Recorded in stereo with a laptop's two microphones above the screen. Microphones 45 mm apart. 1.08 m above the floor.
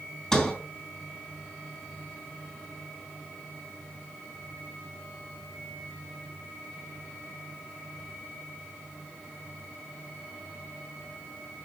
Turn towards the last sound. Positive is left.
turn(degrees=15)  # may be behind; listen again after turning